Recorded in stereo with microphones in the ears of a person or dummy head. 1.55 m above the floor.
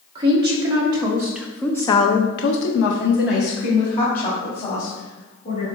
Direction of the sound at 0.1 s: 20° right (ahead or behind).